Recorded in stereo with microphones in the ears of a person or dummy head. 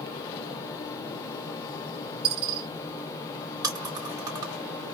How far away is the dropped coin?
About 1.3 m.